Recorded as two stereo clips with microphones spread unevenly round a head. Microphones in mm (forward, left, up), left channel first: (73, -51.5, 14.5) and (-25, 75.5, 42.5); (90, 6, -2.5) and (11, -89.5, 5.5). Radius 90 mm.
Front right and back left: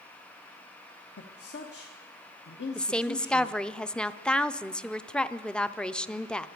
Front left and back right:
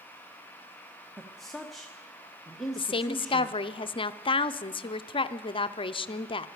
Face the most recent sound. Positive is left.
turn(degrees=25)